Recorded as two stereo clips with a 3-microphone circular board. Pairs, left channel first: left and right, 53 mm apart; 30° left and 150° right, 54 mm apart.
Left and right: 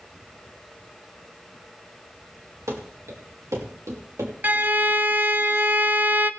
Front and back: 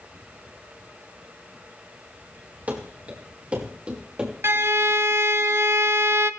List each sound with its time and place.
2.7 s running footsteps: 95° right, 4.5 m; by 4.3 s 80° right, 5.5 m
4.4 s a violin: 140° right, 0.7 m